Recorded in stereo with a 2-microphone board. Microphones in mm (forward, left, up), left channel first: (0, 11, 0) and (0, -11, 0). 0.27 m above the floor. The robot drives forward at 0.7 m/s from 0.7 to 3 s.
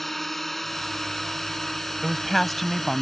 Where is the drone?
10° left (ahead or behind).